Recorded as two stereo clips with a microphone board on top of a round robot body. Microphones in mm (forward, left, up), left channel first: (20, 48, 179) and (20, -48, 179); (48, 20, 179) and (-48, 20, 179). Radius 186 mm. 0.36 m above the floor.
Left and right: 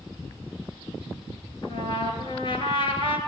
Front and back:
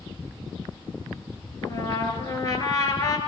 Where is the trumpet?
55° left, 3.5 m.